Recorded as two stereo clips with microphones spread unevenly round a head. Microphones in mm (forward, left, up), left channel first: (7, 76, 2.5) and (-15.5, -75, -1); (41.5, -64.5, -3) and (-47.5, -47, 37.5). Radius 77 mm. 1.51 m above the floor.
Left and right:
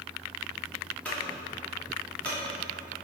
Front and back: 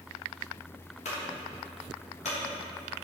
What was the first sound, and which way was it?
A clunk, straight ahead.